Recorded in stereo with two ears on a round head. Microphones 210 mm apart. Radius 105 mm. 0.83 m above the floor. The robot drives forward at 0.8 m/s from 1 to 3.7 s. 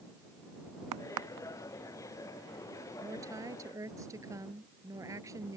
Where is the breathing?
No breathing in this recording.